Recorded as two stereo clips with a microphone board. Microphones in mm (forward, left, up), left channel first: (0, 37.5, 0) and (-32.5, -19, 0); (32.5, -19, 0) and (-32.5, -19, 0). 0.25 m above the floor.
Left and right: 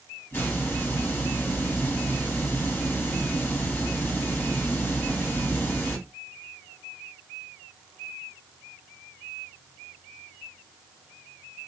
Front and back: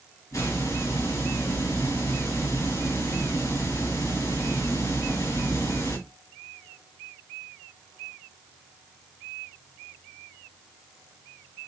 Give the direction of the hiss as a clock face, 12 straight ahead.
12 o'clock.